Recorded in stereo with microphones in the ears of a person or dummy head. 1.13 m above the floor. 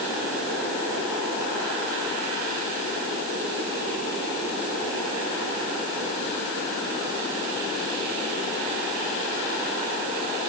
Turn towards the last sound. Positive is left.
No sound to turn to.